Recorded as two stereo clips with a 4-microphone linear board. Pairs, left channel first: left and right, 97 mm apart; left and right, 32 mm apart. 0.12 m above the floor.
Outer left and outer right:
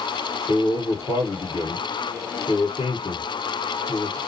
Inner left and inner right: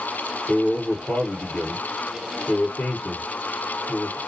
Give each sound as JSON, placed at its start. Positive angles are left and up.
{"t": 0.5, "sound": "a man speaking", "side_deg": 60, "distance_m": 2.5}